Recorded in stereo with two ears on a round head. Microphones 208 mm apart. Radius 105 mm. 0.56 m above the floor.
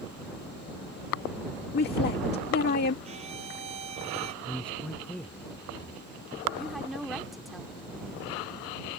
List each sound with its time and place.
1.7 s a woman speaking: 45° left (ahead or behind)
3.0 s a violin: 25° right (ahead or behind)
4.4 s a man speaking: 5° left (ahead or behind)
6.6 s a woman speaking: centre (ahead or behind)